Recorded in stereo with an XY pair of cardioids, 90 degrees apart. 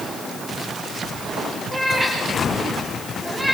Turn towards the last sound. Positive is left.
turn(degrees=-10)